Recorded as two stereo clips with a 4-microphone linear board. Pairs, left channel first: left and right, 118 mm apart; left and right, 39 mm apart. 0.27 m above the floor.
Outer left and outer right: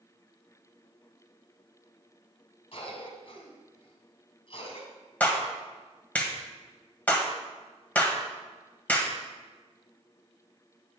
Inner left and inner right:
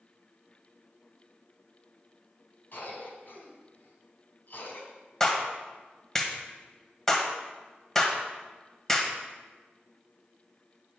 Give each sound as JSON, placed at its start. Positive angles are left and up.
{"t": 2.7, "sound": "a cough", "side_deg": 55, "distance_m": 2.5}
{"t": 5.2, "sound": "a clap", "side_deg": 15, "distance_m": 1.3}